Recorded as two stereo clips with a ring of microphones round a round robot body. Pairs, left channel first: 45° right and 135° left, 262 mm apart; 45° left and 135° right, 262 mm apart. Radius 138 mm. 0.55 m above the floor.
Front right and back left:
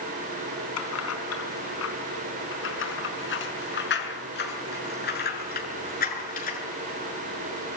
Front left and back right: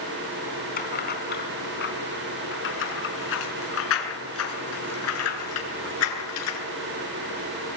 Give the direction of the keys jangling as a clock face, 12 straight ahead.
12 o'clock.